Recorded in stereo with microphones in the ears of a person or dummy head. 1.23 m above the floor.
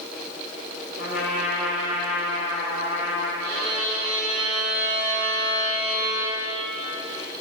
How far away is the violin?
About 5.5 m.